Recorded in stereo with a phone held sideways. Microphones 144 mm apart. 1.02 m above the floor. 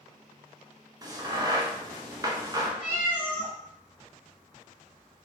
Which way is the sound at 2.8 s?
15° right (ahead or behind).